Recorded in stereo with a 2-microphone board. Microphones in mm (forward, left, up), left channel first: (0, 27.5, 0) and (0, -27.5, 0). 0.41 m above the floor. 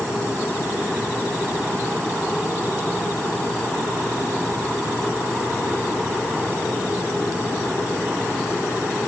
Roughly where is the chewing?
No chewing in this recording.